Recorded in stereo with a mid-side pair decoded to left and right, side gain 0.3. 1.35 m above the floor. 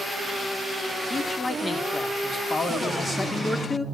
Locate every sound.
1.1 s a man speaking: 40° left, 3.5 m